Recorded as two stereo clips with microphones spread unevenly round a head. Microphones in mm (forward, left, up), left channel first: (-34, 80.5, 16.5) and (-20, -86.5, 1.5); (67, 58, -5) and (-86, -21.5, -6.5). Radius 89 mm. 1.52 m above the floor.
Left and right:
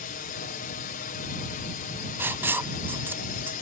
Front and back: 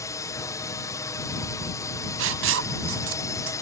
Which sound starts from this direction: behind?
Writing, at 2.2 s.